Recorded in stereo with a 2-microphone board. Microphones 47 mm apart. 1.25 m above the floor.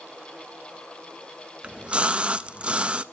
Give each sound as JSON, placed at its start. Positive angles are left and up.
{"t": 1.6, "sound": "a splash", "side_deg": -25, "distance_m": 0.5}